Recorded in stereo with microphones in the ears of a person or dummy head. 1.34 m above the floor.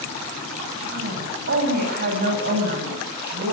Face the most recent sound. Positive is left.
turn(degrees=-55)  # may be behind; listen again after turning